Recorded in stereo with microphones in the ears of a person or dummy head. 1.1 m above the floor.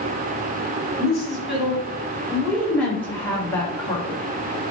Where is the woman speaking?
5° right (ahead or behind), 3 m; by 4.2 s 20° left (ahead or behind), 1.6 m.